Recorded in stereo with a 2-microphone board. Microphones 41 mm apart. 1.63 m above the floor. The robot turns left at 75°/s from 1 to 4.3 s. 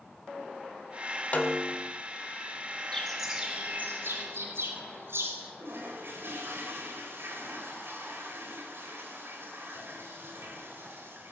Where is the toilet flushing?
60° right (ahead or behind), 4 m.